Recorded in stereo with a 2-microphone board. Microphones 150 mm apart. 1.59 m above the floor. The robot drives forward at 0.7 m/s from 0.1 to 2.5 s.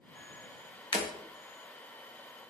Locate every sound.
0.9 s breaking glass: 35° left (ahead or behind), 1.2 m